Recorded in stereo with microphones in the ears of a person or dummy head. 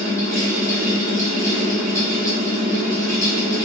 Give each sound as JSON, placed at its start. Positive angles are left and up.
{"t": 0.0, "sound": "a fan", "side_deg": 15, "distance_m": 1.5}